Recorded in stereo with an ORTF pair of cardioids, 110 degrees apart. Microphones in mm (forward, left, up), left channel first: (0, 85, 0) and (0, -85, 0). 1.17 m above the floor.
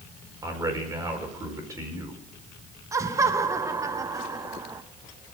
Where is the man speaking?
20° right, 4.5 m.